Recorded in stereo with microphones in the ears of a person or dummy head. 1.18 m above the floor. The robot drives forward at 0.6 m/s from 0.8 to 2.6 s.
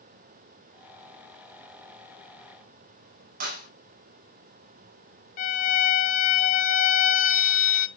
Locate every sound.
3.4 s a clap: 45° right (ahead or behind), 5 m
5.4 s a violin: 35° left (ahead or behind), 0.6 m